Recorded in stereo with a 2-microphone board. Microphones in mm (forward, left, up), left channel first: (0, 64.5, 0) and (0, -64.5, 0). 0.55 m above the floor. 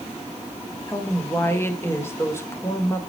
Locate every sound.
0.9 s a woman speaking: 20° left (ahead or behind), 1.6 m